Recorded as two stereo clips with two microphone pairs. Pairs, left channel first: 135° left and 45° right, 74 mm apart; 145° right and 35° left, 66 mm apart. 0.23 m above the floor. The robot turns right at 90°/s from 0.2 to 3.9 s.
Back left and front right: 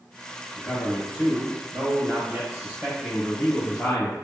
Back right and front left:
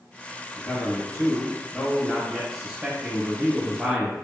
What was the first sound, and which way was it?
A man speaking, 135° left.